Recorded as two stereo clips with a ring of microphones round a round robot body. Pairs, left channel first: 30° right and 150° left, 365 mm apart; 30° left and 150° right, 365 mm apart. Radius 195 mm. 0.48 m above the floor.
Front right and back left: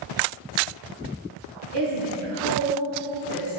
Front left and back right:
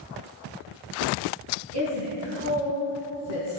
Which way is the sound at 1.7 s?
160° left.